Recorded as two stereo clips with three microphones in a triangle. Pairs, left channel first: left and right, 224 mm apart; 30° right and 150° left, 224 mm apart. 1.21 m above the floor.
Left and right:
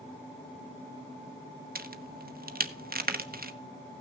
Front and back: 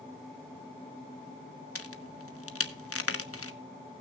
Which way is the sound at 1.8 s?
40° right.